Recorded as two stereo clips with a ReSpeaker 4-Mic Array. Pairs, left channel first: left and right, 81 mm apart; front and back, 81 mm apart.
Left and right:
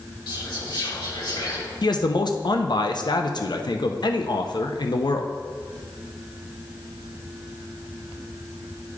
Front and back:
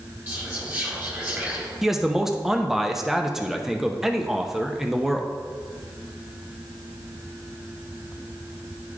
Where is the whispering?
115° left, 2.5 m.